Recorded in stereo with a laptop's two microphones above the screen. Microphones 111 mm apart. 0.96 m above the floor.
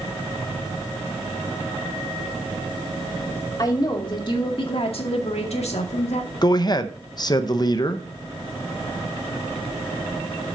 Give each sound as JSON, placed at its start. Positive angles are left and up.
{"t": 3.6, "sound": "a woman speaking", "side_deg": 35, "distance_m": 2.5}
{"t": 6.4, "sound": "a man speaking", "side_deg": 40, "distance_m": 0.6}